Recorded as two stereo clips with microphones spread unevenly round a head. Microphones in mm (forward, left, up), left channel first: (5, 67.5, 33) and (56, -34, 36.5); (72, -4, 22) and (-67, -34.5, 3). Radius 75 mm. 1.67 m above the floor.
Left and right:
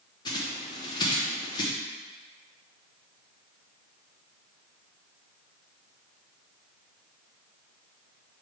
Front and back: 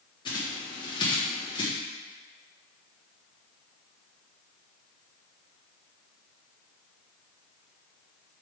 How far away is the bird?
About 1.0 m.